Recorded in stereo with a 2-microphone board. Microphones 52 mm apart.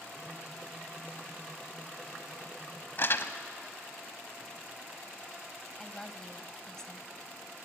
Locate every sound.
3.0 s crumpling: 50° left (ahead or behind), 1.0 m
5.8 s a woman speaking: 10° left (ahead or behind), 1.6 m